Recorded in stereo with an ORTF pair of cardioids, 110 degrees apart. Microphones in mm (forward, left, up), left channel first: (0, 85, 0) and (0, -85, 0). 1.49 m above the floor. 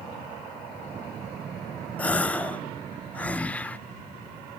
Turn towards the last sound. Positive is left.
turn(degrees=10)